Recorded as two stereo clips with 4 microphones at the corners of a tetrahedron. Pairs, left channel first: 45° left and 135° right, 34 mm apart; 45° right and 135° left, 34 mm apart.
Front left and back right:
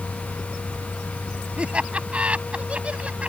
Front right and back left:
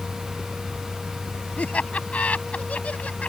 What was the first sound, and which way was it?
Laughter, 85° right.